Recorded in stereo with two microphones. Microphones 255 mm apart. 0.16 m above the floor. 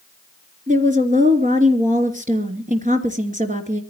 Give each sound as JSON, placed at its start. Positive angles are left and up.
{"t": 0.7, "sound": "a woman speaking", "side_deg": -30, "distance_m": 3.0}